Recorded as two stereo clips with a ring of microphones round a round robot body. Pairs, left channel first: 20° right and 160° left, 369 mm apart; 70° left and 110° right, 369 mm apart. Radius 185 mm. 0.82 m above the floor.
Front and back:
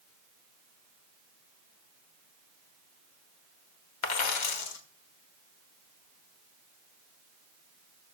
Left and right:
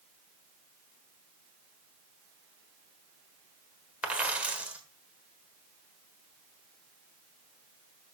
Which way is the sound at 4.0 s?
25° right.